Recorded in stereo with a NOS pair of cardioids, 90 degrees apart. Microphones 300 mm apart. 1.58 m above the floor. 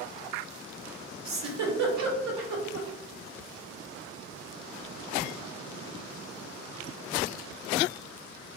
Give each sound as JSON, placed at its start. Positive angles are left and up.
{"t": 1.2, "sound": "a giggle", "azimuth_deg": -65, "distance_m": 0.9}